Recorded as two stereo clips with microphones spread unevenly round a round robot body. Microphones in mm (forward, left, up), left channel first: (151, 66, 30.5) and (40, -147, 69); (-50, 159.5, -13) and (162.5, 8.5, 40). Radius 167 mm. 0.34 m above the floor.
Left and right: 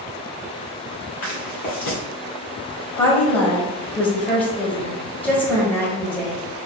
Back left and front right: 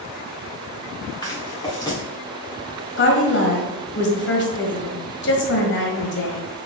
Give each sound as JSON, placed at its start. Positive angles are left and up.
{"t": 1.2, "sound": "footsteps", "azimuth_deg": 70, "distance_m": 2.5}
{"t": 3.0, "sound": "a woman speaking", "azimuth_deg": 140, "distance_m": 1.5}